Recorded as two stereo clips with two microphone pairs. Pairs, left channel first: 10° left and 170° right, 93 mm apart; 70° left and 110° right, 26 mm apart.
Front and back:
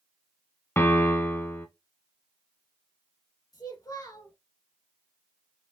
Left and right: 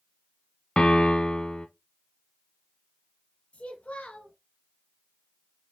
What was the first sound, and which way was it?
A piano, 60° left.